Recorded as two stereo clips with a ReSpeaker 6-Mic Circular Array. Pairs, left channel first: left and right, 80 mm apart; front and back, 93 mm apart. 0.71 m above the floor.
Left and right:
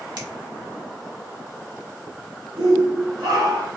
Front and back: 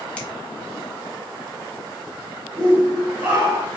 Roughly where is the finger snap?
Right.